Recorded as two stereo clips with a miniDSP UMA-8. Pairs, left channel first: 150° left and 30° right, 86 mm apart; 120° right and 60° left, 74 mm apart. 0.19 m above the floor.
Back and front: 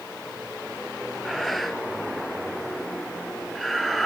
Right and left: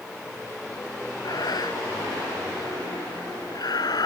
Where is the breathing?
120° right, 0.9 m.